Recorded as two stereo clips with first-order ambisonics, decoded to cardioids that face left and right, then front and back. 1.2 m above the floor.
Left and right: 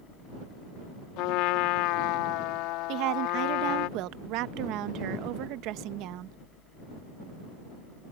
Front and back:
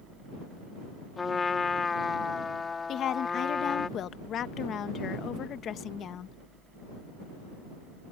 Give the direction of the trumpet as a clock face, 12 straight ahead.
10 o'clock.